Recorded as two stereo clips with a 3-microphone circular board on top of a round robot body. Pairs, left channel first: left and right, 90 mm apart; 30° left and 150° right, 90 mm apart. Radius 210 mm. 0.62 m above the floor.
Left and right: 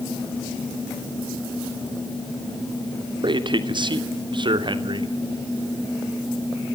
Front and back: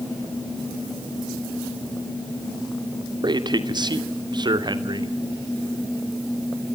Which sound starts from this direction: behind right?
A man speaking, at 3.2 s.